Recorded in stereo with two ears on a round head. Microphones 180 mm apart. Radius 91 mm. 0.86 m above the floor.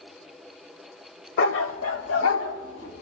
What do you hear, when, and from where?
1.4 s a dog barking: 65° left (ahead or behind), 1.4 m; by 3.0 s 60° left (ahead or behind), 3 m